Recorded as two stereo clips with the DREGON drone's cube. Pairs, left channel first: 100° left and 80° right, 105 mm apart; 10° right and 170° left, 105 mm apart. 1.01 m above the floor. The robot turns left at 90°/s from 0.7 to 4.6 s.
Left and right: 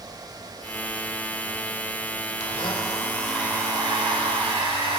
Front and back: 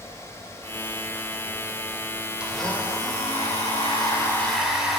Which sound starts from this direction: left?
A blender, at 2.4 s.